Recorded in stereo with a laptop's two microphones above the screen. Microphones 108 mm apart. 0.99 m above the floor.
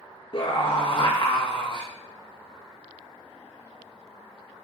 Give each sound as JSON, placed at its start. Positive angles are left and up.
{"t": 0.3, "sound": "a scream", "side_deg": 45, "distance_m": 0.8}